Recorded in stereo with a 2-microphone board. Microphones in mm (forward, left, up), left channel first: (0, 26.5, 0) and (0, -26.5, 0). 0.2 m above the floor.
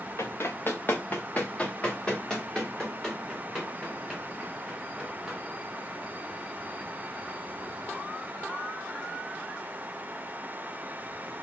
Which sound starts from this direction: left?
Running footsteps, at 0.2 s.